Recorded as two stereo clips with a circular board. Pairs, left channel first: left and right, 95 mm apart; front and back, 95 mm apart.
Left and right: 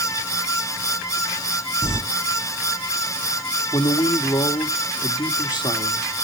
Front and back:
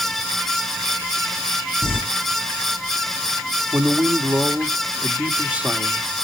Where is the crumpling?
10° right, 3 m.